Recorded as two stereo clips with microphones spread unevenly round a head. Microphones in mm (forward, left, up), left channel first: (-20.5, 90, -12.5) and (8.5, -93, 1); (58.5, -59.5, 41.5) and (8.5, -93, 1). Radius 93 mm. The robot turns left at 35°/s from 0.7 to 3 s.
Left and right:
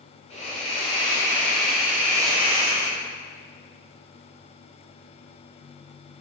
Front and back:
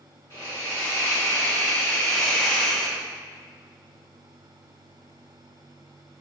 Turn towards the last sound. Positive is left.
turn(degrees=-40)